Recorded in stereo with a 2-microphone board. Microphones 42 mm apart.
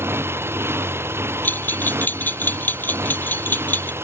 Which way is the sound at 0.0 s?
75° right (ahead or behind).